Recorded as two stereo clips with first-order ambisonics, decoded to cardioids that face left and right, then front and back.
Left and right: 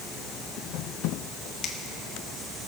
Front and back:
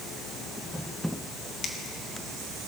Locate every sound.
1.6 s a finger snap: 55° left, 1.2 m